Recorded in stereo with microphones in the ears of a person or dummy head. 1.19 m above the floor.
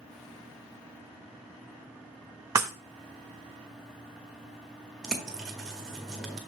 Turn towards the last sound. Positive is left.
turn(degrees=-5)  # may be behind; listen again after turning